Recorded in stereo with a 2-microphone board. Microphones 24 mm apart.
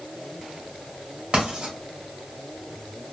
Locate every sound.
1.3 s writing: 55° right (ahead or behind), 2.0 m